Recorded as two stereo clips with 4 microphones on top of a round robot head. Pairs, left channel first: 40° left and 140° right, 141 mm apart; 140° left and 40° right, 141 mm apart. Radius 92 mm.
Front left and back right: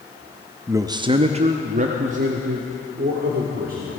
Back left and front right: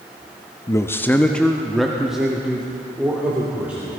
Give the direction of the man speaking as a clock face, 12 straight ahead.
6 o'clock.